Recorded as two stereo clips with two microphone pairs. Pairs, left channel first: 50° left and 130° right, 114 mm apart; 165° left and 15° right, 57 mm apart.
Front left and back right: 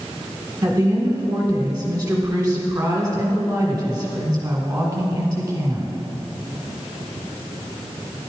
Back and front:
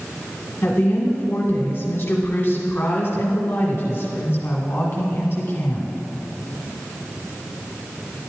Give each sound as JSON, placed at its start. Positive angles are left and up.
{"t": 0.6, "sound": "a woman speaking", "azimuth_deg": 180, "distance_m": 1.3}